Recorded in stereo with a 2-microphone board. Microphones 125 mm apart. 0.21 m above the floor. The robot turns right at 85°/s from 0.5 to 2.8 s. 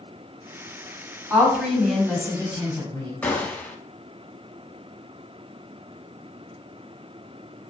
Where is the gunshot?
15° left (ahead or behind), 0.6 m.